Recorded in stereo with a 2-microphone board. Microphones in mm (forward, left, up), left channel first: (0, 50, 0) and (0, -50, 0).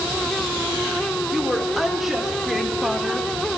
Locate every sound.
1.3 s a woman speaking: centre (ahead or behind), 3.5 m; by 3.3 s 5° right (ahead or behind), 2 m